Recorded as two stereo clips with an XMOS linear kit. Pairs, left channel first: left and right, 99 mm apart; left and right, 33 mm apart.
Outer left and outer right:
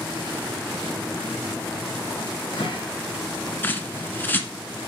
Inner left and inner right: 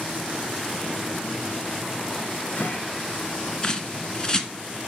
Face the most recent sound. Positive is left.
turn(degrees=20)  # may be behind; listen again after turning